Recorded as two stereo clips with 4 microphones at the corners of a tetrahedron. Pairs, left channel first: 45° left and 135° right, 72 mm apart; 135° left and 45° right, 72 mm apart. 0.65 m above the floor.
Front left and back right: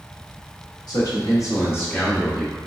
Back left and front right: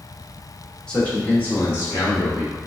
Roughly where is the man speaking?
Ahead left.